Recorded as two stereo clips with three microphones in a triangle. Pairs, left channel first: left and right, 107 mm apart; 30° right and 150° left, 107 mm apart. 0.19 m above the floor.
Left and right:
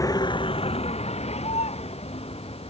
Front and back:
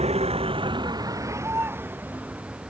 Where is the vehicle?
145° left; by 2.7 s 70° left.